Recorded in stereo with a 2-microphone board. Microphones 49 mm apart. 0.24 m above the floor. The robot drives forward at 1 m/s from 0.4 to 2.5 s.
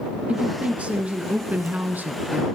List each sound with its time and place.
0.3 s a woman speaking: 25° right (ahead or behind), 3.5 m; by 2.5 s 40° right (ahead or behind), 2.5 m